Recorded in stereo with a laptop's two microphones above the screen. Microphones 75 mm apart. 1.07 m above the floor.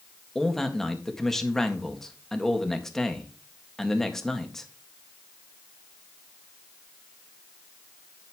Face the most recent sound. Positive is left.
turn(degrees=5)  # may be behind; listen again after turning